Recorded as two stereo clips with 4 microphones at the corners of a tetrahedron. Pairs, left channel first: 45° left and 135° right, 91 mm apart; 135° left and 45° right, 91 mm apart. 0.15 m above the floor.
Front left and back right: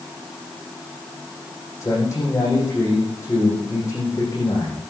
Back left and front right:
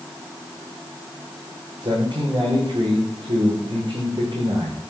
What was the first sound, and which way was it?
A man speaking, 10° right.